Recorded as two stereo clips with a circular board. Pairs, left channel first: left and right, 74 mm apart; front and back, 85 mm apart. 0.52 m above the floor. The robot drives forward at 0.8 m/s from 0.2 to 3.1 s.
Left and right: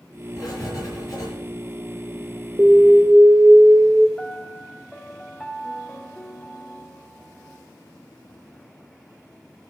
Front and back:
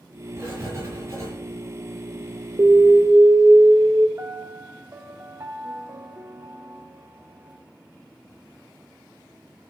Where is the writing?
120° left, 5.5 m; by 1.3 s 125° left, 6 m.